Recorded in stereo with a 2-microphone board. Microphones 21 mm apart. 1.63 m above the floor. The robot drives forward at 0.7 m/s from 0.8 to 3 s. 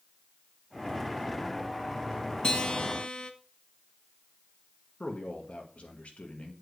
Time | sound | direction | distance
2.4 | a guitar | 35° left (ahead or behind) | 1.1 m
5.0 | a man speaking | 65° left (ahead or behind) | 2 m